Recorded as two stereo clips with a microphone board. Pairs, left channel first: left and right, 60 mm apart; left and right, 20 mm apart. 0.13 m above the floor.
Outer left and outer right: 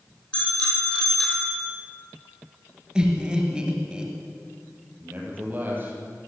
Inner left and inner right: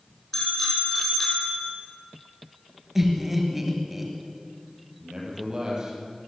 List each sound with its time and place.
0.3 s a bicycle bell: 15° left (ahead or behind), 3.5 m; by 1.7 s 10° left (ahead or behind), 2.5 m
3.0 s laughter: 15° right (ahead or behind), 2.5 m
5.0 s a man speaking: 30° right (ahead or behind), 4 m